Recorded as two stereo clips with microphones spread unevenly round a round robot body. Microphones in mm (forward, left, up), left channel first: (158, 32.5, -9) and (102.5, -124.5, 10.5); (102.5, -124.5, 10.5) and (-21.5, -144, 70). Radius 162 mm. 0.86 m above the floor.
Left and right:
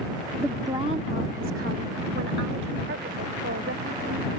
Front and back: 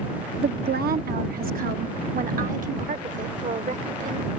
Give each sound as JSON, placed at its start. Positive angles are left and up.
{"t": 0.4, "sound": "a woman speaking", "azimuth_deg": 165}